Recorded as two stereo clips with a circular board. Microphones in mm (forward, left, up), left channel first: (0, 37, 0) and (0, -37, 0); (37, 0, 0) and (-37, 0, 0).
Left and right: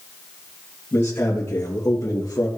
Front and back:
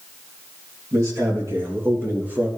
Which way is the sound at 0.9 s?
150° left.